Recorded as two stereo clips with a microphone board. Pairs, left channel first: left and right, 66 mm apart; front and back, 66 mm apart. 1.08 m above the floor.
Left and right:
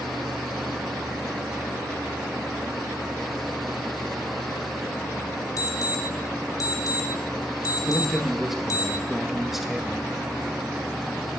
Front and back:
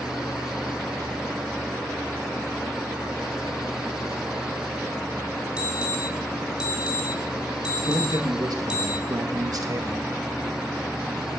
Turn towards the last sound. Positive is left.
turn(degrees=-175)